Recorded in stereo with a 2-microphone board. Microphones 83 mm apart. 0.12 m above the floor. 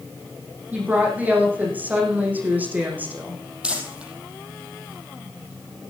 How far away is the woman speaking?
About 5.5 m.